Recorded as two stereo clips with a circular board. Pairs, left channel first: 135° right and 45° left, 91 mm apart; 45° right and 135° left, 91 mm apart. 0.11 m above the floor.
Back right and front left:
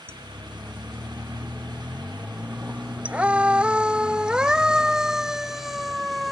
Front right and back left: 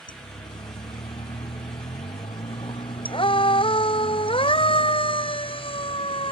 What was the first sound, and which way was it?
A siren, 20° right.